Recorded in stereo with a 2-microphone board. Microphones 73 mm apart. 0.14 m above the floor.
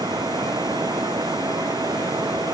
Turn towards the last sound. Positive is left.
turn(degrees=-70)  # may be behind; listen again after turning